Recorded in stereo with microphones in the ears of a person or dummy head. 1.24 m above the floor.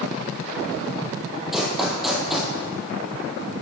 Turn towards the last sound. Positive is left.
turn(degrees=-5)  # may be behind; listen again after turning